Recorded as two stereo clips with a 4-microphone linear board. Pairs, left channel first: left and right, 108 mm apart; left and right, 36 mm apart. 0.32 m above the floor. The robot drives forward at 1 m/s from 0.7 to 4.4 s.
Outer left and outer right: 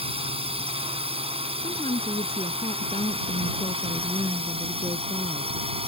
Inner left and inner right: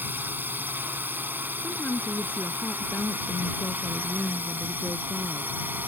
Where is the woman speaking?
65° left (ahead or behind); by 5.6 s 55° left (ahead or behind).